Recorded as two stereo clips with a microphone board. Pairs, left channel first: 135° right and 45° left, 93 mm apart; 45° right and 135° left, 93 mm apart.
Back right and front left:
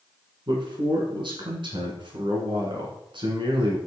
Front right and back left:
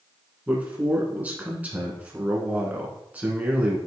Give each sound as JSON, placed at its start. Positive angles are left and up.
{"t": 0.5, "sound": "a man speaking", "azimuth_deg": 65, "distance_m": 2.0}